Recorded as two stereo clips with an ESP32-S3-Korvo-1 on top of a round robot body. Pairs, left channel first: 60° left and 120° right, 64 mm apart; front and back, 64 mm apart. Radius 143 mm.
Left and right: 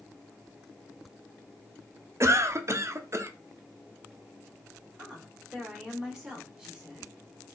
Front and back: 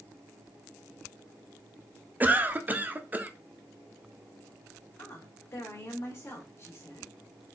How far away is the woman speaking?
About 2.0 m.